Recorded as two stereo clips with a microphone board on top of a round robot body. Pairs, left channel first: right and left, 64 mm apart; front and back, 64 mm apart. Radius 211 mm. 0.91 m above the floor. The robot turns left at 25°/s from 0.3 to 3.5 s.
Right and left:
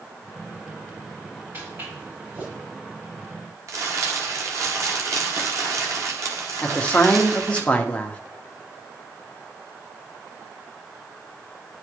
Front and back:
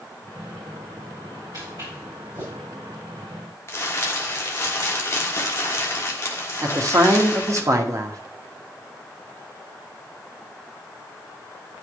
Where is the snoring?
No snoring in this recording.